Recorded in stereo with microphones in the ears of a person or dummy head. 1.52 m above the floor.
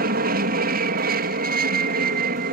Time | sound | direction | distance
0.0 | an aircraft | 45° right (ahead or behind) | ?